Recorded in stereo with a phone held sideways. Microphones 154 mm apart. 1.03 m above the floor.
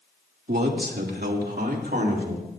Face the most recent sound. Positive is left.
turn(degrees=-65)  # may be behind; listen again after turning